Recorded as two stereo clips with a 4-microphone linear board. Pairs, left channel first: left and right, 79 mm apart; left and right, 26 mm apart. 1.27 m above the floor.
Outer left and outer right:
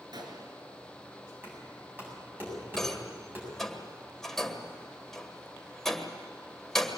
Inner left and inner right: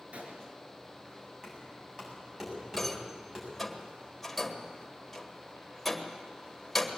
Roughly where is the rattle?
Centre.